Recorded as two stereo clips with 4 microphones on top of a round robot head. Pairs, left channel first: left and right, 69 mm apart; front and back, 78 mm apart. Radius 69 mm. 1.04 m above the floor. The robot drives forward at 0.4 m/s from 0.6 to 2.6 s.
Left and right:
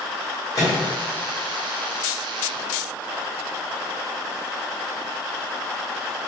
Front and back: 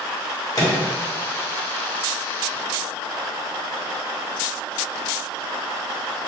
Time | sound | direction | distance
0.6 | a microwave | 40° left | 1.5 m